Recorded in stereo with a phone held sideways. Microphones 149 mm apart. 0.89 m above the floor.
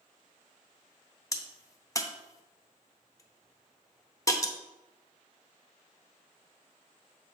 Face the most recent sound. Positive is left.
turn(degrees=20)  # may be behind; listen again after turning